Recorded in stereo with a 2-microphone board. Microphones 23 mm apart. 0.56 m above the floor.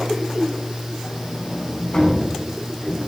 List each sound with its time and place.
1.0 s a sliding door: 50° left (ahead or behind), 6.5 m